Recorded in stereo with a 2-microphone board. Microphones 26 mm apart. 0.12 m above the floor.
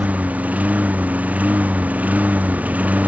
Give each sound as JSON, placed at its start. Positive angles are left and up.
{"t": 0.0, "sound": "a lawn mower", "side_deg": -80}